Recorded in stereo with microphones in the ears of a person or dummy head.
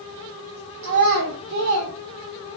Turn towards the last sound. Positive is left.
turn(degrees=-85)